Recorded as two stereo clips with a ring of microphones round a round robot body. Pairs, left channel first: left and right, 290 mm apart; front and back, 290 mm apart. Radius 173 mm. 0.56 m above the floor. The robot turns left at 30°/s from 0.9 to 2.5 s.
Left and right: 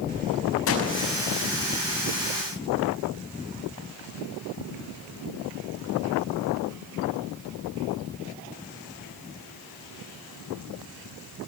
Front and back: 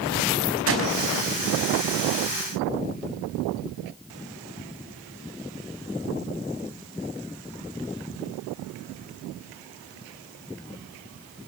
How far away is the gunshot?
About 5.5 m.